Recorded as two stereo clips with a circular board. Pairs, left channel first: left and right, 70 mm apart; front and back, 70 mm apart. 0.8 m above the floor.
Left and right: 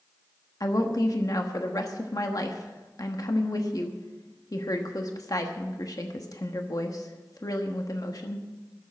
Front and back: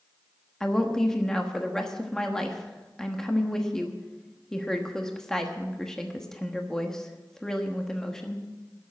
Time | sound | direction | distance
0.6 | a woman speaking | 80° left | 1.2 m